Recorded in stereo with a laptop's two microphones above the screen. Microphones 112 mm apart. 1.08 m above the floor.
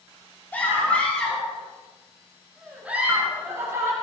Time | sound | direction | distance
0.5 | a scream | 15° left (ahead or behind) | 7 m